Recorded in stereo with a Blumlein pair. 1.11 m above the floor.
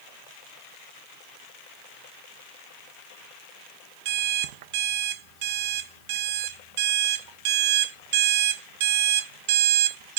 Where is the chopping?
No chopping in this recording.